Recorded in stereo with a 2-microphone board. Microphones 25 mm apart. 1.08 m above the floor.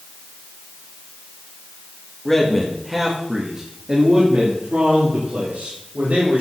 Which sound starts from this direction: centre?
A man speaking, at 2.2 s.